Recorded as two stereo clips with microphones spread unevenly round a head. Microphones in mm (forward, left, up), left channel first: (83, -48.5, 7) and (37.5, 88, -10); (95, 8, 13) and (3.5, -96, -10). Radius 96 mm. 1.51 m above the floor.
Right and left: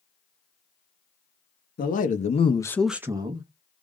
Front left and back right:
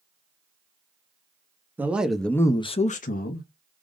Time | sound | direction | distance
1.8 | a man speaking | 50° right | 0.8 m